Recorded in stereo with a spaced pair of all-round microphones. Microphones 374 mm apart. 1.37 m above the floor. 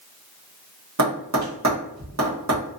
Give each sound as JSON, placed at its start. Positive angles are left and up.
{"t": 1.0, "sound": "tapping", "side_deg": -50, "distance_m": 1.1}